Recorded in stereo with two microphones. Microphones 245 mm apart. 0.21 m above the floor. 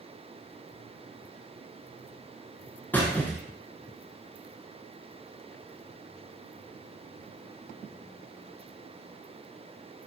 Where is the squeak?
10° left (ahead or behind), 0.7 m.